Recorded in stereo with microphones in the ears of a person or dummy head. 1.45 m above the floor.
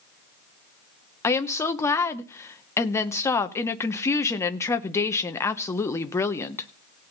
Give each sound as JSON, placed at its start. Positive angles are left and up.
{"t": 1.2, "sound": "a woman speaking", "side_deg": 15, "distance_m": 0.8}